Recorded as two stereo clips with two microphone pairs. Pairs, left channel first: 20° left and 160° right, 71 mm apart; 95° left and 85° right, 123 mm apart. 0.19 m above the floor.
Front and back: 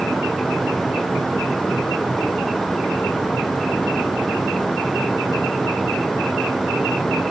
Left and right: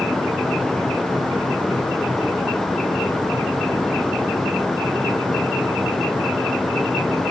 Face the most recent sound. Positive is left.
No sound to turn to.